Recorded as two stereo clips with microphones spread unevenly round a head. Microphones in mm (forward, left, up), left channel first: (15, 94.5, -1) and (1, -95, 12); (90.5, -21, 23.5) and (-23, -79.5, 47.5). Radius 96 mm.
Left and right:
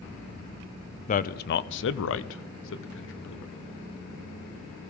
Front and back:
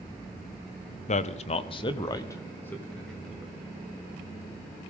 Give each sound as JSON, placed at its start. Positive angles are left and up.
{"t": 1.1, "sound": "a man speaking", "azimuth_deg": 40, "distance_m": 0.7}